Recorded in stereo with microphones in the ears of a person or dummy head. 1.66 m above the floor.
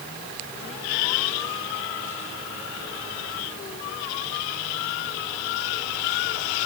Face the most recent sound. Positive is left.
No sound to turn to.